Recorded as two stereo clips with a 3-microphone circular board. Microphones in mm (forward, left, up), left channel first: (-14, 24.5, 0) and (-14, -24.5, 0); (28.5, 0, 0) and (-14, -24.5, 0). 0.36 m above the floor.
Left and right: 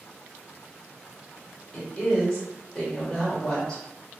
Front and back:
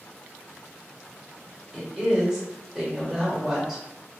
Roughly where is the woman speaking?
Behind left.